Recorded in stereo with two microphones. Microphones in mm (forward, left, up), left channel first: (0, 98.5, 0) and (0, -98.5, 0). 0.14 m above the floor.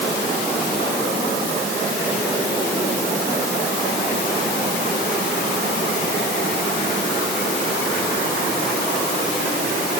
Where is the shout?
No shout in this recording.